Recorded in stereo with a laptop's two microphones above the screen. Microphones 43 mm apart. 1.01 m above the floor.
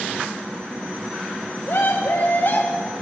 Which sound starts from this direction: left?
A scream, at 1.7 s.